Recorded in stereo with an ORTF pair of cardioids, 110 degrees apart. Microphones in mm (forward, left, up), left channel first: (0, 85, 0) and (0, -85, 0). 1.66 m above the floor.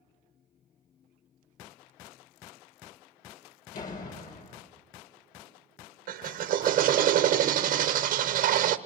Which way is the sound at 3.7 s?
50° left.